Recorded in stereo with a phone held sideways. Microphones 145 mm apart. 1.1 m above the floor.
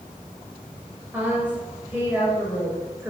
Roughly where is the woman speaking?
Centre.